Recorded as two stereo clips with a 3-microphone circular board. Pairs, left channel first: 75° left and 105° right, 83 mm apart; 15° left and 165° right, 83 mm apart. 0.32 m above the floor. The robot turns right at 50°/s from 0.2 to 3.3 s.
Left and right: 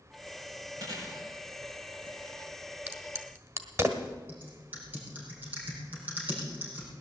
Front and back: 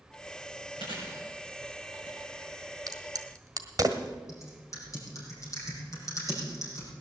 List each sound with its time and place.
0.8 s chewing: 155° right, 6.5 m; by 2.2 s 85° right, 6.5 m
2.9 s a crack: 165° right, 1.5 m; by 4.1 s 140° right, 1.5 m
4.3 s typing on a keyboard: 35° right, 5 m